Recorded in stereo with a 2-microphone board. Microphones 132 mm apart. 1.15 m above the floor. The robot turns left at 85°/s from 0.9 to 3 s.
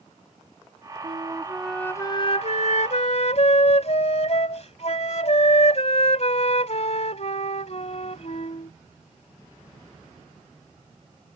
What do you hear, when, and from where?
1.0 s a flute: 125° right; by 8.7 s 65° left